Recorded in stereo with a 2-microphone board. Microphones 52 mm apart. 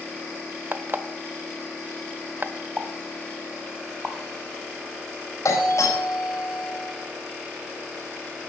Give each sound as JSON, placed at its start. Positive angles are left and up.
{"t": 0.7, "sound": "an alarm clock", "side_deg": -40, "distance_m": 0.9}
{"t": 2.8, "sound": "a pop", "side_deg": -20, "distance_m": 1.5}
{"t": 5.5, "sound": "a doorbell", "side_deg": 75, "distance_m": 4.5}